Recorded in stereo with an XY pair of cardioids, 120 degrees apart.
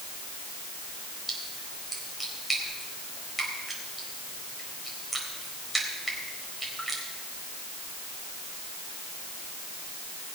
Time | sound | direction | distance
1.3 | a splash | 5° right | 4 m